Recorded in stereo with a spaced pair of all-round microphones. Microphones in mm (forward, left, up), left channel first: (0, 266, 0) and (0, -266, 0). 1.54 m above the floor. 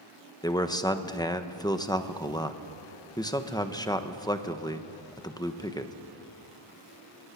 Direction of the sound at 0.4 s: 5° left (ahead or behind).